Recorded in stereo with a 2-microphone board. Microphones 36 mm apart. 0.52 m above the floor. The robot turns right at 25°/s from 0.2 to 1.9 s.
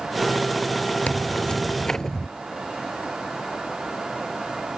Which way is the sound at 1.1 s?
40° left (ahead or behind).